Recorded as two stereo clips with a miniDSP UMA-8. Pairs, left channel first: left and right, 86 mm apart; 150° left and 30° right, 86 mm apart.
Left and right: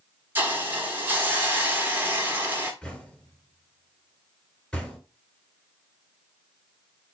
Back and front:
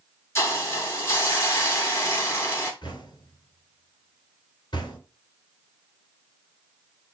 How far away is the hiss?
About 1.1 m.